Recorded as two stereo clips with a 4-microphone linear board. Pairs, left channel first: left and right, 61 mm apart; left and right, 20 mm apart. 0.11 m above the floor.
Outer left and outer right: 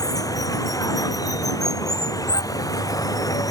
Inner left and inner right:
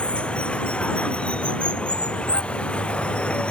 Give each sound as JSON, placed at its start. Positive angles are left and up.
{"t": 0.0, "sound": "running water", "side_deg": 80}